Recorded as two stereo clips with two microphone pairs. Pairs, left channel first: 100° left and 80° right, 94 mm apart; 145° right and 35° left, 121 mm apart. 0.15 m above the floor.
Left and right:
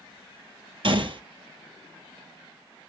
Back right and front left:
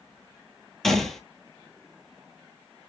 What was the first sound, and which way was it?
A gunshot, 55° right.